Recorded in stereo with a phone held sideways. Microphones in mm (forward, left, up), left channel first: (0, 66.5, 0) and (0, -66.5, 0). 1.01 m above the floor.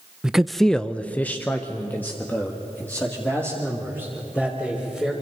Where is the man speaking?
5° right (ahead or behind), 0.6 m; by 5.1 s 10° left (ahead or behind), 4 m.